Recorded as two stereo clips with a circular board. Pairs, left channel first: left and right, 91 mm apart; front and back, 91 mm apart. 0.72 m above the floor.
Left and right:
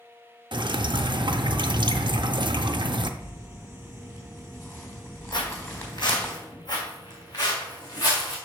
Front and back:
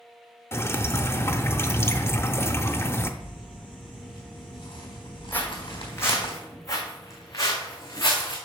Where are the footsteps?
65° left, 1.5 m; by 8.4 s 50° left, 3 m.